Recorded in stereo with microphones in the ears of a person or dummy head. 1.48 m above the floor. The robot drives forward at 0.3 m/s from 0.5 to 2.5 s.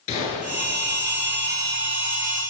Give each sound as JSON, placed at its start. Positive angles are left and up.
{"t": 0.1, "sound": "a gunshot", "side_deg": 30, "distance_m": 8.0}